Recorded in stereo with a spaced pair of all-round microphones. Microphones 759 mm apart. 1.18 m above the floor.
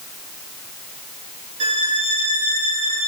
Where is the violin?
70° right (ahead or behind), 0.9 m.